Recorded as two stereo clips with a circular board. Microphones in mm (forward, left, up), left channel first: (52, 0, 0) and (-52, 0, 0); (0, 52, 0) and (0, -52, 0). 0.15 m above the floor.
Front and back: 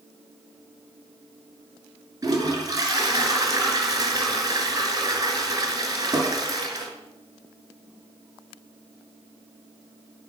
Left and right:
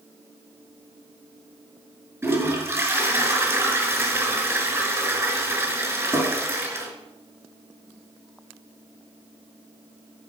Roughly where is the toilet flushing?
Behind right.